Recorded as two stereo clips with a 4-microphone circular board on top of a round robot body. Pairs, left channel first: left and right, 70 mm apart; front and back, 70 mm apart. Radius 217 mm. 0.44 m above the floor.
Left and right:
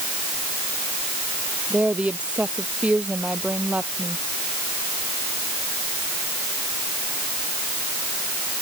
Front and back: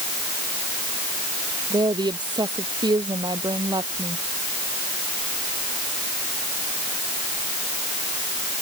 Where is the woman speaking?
165° right.